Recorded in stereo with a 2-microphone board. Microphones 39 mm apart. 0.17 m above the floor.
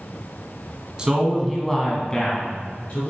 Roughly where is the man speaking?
Right.